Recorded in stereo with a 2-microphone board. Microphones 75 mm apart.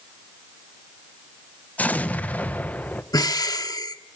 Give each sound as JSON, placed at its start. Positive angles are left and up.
{"t": 1.8, "sound": "an explosion", "side_deg": 20, "distance_m": 1.1}
{"t": 3.1, "sound": "breathing", "side_deg": 60, "distance_m": 1.1}